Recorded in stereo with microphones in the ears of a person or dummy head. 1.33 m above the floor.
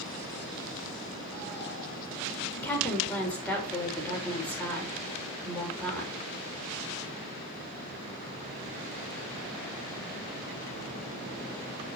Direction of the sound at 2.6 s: 10° left (ahead or behind).